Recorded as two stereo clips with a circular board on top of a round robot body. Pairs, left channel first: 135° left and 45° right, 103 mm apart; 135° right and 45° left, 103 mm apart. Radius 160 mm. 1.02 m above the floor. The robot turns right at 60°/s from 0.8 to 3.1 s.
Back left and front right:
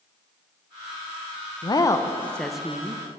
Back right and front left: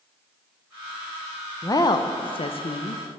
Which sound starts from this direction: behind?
A woman speaking, at 1.6 s.